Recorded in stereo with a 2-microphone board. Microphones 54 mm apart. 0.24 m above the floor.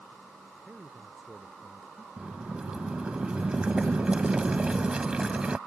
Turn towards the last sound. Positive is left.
turn(degrees=-20)  # may be behind; listen again after turning